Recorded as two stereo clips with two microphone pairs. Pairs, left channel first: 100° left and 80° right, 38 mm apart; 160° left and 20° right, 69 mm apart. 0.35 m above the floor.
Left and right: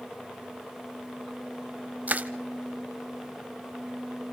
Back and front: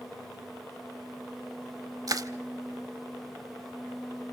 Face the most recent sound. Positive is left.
turn(degrees=-45)